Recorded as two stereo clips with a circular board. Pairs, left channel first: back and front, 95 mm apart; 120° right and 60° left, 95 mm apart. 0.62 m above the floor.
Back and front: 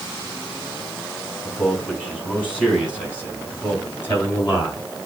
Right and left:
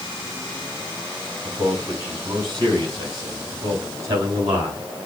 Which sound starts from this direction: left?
A man speaking, at 1.4 s.